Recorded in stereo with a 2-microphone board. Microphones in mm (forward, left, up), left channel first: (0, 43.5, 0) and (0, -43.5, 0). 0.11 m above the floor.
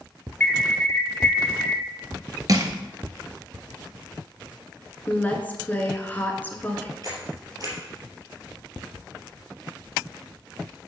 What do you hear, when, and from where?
0.4 s an alarm: 20° left (ahead or behind), 1.4 m
2.5 s crushing: 45° right (ahead or behind), 1.0 m
5.1 s a woman speaking: 20° left (ahead or behind), 1.1 m
7.0 s a camera shutter: 50° right (ahead or behind), 3 m